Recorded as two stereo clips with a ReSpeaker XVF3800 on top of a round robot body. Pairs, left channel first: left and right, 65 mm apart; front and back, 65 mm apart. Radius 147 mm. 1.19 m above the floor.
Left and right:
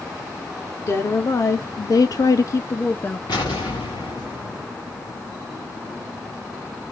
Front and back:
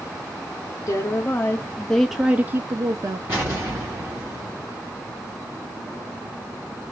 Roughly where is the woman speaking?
Ahead left.